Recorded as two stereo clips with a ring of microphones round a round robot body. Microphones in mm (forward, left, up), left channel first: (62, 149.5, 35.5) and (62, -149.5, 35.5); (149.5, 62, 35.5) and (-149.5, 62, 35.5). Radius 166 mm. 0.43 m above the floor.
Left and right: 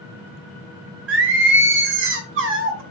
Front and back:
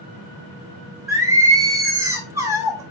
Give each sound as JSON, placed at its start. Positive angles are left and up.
{"t": 1.1, "sound": "singing", "azimuth_deg": -105, "distance_m": 0.9}